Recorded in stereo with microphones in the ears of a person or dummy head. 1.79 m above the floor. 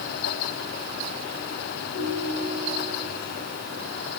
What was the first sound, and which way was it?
A ringtone, 70° left (ahead or behind).